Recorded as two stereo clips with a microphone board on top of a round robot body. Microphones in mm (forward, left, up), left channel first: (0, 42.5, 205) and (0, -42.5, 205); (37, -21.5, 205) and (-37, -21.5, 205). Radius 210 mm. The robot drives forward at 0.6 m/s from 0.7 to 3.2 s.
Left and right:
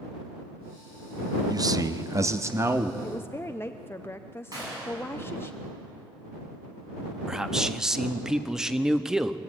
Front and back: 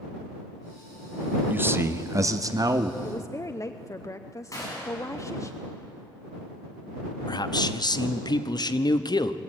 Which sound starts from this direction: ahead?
A man speaking, at 7.3 s.